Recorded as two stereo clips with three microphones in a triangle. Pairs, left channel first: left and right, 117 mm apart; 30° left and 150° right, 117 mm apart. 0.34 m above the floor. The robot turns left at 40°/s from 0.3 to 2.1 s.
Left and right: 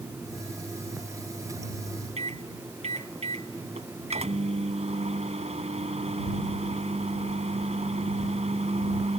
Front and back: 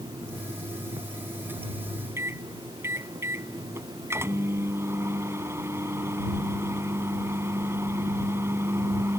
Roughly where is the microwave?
Right.